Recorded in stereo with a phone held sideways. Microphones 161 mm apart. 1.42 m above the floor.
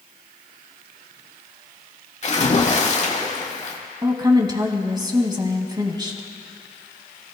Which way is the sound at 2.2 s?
45° left (ahead or behind).